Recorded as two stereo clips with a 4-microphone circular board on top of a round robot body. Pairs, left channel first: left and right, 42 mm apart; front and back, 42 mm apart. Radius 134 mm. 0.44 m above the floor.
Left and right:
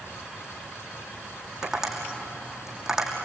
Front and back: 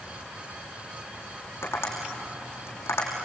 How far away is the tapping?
About 5.5 m.